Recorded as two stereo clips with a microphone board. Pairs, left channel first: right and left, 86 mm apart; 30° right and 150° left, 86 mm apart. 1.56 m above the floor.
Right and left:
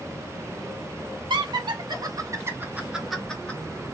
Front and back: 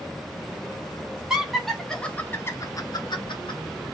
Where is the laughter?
65° left, 1.9 m; by 3.6 s 20° right, 1.4 m.